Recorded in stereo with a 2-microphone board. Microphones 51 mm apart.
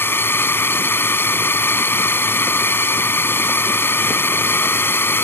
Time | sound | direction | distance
0.0 | a drone | 50° left (ahead or behind) | ?